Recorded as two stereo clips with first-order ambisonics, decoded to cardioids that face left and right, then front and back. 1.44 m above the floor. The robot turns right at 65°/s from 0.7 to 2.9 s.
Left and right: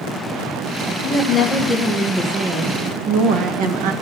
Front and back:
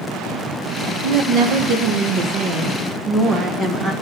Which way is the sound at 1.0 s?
135° left.